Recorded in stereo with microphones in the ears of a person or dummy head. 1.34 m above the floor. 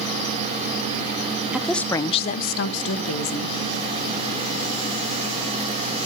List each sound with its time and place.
1.5 s a woman speaking: centre (ahead or behind), 0.6 m; by 3.6 s 85° left, 1.1 m